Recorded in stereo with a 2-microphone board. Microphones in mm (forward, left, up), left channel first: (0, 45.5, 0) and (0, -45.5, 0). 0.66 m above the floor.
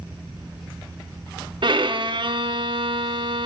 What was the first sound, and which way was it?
A violin, 60° right (ahead or behind).